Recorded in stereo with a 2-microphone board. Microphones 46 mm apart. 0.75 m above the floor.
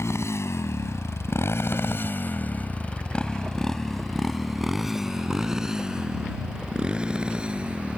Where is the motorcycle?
80° left; by 8.0 s 25° right (ahead or behind).